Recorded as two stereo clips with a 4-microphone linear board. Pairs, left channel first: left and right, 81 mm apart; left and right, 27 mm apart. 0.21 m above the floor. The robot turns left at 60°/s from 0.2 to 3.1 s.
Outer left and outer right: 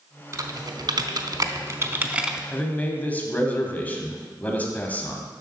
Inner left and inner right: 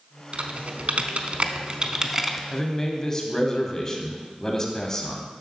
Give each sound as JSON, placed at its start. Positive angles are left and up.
{"t": 0.3, "sound": "typing on a keyboard", "side_deg": -45, "distance_m": 0.6}
{"t": 2.5, "sound": "a man speaking", "side_deg": 15, "distance_m": 1.0}